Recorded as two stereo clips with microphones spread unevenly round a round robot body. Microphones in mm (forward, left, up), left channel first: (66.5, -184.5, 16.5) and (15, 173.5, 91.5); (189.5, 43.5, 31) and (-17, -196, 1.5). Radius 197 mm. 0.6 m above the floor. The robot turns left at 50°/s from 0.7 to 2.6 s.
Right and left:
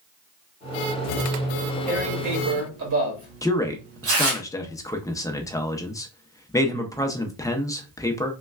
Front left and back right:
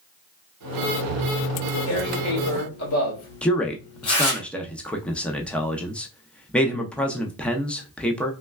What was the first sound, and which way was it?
Tearing paper, 85° left.